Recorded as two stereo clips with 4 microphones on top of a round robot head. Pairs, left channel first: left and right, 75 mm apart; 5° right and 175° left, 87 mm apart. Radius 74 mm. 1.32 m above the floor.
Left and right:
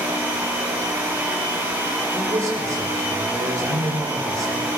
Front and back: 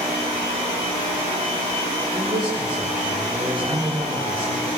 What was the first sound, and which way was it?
A man speaking, 135° right.